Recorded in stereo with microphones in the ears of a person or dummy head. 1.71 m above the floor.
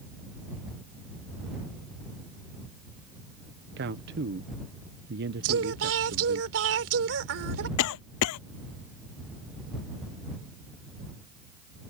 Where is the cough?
75° left (ahead or behind).